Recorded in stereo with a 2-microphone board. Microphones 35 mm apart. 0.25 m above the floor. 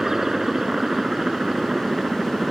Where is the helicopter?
10° right (ahead or behind).